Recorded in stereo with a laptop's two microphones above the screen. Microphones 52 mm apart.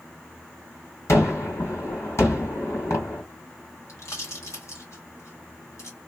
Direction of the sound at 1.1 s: 70° left (ahead or behind).